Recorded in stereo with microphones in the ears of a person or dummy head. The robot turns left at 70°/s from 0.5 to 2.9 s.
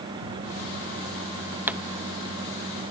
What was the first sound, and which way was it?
A pop, 10° right (ahead or behind).